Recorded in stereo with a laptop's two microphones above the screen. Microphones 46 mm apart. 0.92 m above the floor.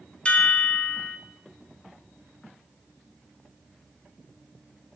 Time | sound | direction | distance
0.2 | a chime | 25° left (ahead or behind) | 1.5 m